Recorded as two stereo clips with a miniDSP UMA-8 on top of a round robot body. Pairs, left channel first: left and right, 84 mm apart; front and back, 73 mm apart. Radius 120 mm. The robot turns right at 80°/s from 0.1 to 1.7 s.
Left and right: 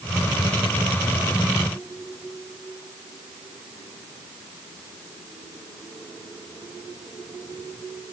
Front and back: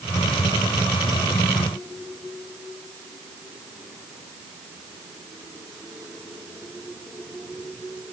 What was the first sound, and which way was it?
Only background noise.